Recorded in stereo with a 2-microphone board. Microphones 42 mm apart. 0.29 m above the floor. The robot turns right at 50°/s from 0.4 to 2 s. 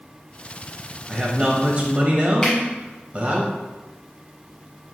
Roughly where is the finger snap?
Centre.